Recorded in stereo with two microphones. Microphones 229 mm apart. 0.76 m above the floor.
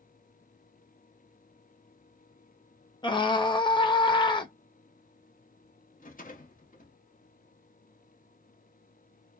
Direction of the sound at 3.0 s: 20° left (ahead or behind).